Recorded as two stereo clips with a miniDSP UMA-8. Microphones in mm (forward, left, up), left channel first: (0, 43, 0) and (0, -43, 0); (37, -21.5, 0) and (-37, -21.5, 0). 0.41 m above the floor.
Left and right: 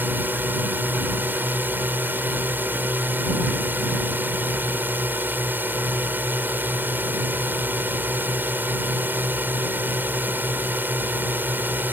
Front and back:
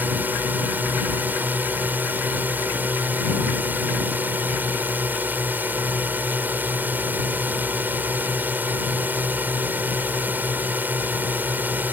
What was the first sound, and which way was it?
A drone, 135° right.